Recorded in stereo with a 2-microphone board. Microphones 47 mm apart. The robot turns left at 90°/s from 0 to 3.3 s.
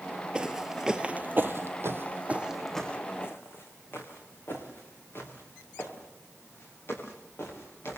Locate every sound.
0.3 s footsteps: 15° right (ahead or behind), 1.0 m; by 8.0 s 55° left (ahead or behind), 9 m